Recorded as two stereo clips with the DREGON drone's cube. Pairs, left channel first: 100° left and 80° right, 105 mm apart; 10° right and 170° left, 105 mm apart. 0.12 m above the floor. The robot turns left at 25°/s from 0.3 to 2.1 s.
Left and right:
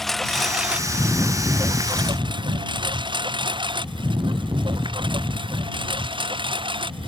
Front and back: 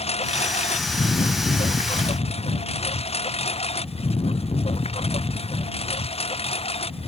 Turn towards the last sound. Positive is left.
turn(degrees=-40)